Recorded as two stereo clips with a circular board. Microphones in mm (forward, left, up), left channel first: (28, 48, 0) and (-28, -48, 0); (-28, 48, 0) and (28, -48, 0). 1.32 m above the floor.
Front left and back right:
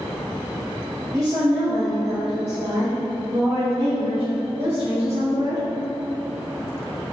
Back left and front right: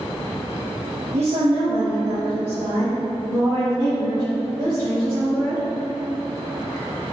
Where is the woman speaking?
60° right, 1.2 m; by 5.6 s 110° right, 6.5 m.